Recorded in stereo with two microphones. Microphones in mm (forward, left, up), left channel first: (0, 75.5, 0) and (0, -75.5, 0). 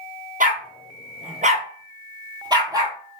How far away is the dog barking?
About 1.2 m.